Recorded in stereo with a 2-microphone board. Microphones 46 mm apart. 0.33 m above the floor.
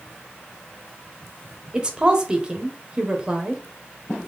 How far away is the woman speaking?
About 0.9 m.